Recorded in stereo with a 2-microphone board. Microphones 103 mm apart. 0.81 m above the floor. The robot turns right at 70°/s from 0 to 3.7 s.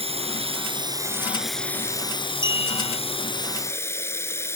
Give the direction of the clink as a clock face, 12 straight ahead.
10 o'clock.